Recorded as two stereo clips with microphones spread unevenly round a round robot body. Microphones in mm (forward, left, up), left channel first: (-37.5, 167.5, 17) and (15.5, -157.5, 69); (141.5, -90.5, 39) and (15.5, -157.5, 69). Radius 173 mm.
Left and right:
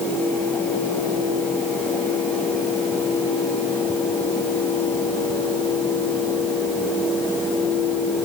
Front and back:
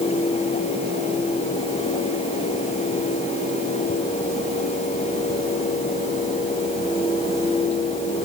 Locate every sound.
Only background noise.